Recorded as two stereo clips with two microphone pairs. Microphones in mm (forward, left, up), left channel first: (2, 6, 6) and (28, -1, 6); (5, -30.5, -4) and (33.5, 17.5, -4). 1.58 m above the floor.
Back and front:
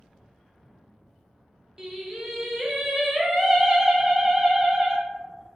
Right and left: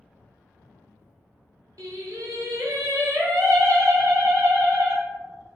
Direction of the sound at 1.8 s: 50° left.